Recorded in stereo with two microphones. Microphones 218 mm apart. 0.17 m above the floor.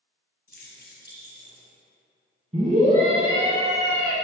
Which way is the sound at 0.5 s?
45° left (ahead or behind).